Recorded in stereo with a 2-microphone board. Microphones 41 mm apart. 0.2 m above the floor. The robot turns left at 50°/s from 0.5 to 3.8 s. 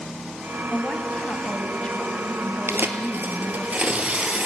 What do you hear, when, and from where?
0.7 s a woman speaking: 20° left (ahead or behind), 1.4 m; by 3.7 s 10° right (ahead or behind), 1.4 m
2.7 s tearing paper: 90° right, 1.8 m; by 4.5 s 145° right, 1.8 m